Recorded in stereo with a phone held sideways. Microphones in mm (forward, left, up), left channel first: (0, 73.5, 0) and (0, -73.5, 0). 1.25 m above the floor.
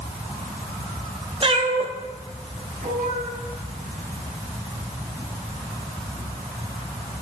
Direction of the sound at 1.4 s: 35° right (ahead or behind).